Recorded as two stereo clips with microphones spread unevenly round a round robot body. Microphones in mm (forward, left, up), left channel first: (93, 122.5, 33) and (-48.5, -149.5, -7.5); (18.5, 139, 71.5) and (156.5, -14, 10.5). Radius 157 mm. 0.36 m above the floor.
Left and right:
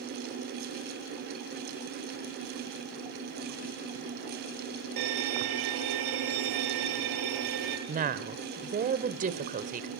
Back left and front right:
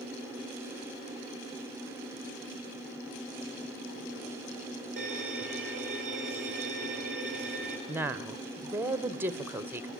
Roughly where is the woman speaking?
Right.